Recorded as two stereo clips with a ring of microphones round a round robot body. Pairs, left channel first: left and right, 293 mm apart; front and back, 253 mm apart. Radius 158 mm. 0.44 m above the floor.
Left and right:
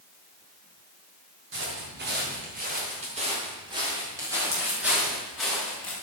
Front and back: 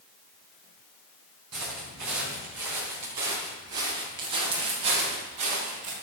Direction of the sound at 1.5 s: 140° right.